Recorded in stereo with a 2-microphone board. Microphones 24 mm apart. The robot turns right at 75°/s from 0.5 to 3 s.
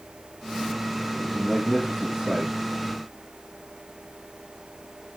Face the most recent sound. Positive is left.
turn(degrees=-70)